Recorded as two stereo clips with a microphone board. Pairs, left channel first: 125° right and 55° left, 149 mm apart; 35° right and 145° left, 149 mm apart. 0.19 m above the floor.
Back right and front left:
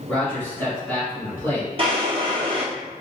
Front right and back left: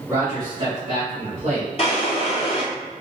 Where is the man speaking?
155° left, 1.1 m; by 1.7 s 160° left, 1.7 m.